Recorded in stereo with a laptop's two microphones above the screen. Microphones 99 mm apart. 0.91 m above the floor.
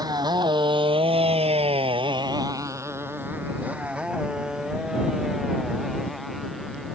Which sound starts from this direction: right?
A motorcycle, at 0.0 s.